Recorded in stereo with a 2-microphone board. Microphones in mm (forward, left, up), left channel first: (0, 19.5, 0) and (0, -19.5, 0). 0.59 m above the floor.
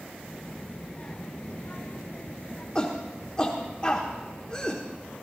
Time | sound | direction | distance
0.2 | a child speaking | 10° left (ahead or behind) | 1.9 m
2.8 | a shout | 25° left (ahead or behind) | 1.2 m